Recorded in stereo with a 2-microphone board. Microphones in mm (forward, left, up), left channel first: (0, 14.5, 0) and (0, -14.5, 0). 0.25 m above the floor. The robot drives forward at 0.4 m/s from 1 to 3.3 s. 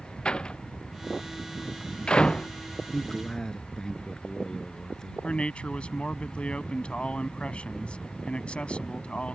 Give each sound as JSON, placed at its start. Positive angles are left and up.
{"t": 0.2, "sound": "a door slam", "side_deg": 35}
{"t": 2.9, "sound": "a man speaking", "side_deg": 20}
{"t": 5.2, "sound": "a man speaking", "side_deg": 40}